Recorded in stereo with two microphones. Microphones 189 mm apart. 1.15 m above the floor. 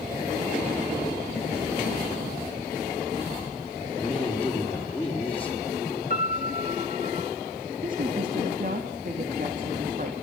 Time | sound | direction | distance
4.0 | a woman speaking | 10° left (ahead or behind) | 3.5 m
6.1 | a piano | 55° left (ahead or behind) | 1.7 m
7.8 | a woman speaking | 50° right (ahead or behind) | 2.5 m